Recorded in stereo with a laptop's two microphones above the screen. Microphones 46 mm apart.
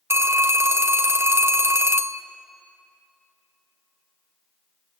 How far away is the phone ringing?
About 0.5 m.